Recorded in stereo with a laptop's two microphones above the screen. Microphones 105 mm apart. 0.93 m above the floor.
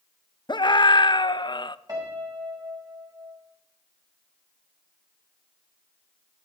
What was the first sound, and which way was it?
A scream, 45° left (ahead or behind).